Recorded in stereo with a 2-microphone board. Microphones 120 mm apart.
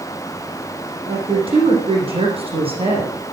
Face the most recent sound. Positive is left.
turn(degrees=-55)  # may be behind; listen again after turning